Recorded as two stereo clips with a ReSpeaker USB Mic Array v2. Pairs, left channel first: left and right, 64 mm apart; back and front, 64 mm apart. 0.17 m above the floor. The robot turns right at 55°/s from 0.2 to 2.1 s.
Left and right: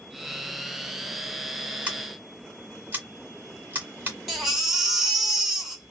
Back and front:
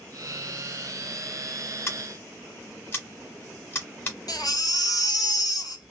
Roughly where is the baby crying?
Behind.